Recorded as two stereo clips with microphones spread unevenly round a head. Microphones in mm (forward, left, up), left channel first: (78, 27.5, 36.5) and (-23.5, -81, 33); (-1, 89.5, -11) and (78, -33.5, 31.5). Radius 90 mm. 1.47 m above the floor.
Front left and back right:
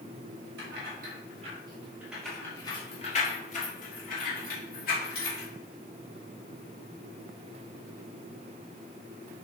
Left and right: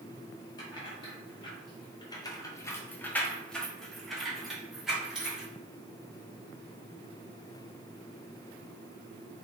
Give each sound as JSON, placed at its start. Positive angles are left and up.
{"t": 0.6, "sound": "keys jangling", "azimuth_deg": -165, "distance_m": 1.0}